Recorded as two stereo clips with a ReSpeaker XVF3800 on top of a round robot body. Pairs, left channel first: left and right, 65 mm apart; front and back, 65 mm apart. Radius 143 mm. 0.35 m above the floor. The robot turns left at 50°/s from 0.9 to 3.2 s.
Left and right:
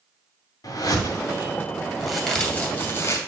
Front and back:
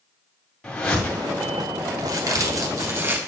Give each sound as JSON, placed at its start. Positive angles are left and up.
{"t": 0.6, "sound": "a whoosh", "azimuth_deg": 80, "distance_m": 2.0}
{"t": 2.0, "sound": "a crack", "azimuth_deg": 180, "distance_m": 2.0}